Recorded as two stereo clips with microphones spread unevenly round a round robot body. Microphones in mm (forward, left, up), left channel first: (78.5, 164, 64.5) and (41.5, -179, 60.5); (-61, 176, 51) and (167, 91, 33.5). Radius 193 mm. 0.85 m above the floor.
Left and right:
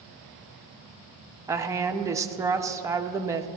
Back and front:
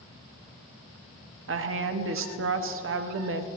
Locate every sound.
1.5 s a woman speaking: 15° right, 1.0 m